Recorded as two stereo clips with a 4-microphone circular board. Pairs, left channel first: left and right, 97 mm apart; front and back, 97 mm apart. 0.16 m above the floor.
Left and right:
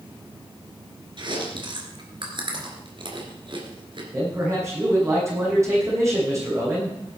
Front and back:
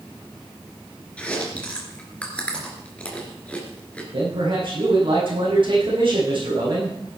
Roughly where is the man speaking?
Behind right.